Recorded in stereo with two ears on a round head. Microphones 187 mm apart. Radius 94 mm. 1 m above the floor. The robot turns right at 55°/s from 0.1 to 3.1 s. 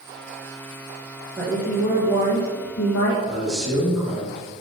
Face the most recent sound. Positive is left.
turn(degrees=0)  # may be behind; listen again after turning